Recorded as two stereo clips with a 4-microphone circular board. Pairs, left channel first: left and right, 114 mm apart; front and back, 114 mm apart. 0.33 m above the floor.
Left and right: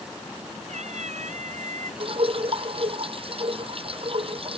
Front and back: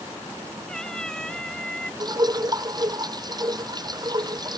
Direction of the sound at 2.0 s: 125° right.